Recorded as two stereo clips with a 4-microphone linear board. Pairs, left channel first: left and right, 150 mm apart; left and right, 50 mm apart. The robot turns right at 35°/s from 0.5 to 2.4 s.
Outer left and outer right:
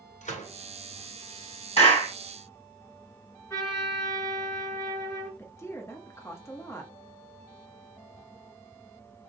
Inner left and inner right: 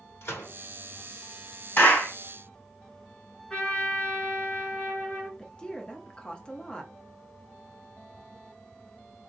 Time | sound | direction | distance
0.2 | a gunshot | 55° left (ahead or behind) | 2 m
1.8 | a clap | 40° left (ahead or behind) | 2.5 m
3.5 | a trumpet | 20° left (ahead or behind) | 1.7 m
5.4 | a woman speaking | 15° left (ahead or behind) | 0.8 m